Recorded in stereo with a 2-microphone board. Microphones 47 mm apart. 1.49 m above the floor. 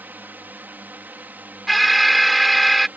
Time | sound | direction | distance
0.0 | a drone | 45° right (ahead or behind) | ?
1.7 | an alarm | centre (ahead or behind) | ?